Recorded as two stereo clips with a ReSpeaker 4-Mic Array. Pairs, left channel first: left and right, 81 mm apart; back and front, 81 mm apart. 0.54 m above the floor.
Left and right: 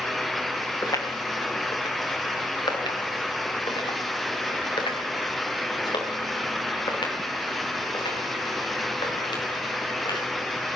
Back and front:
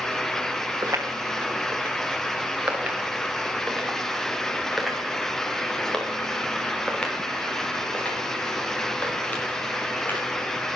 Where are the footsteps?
50° left, 2.5 m; by 10.3 s 110° left, 6 m.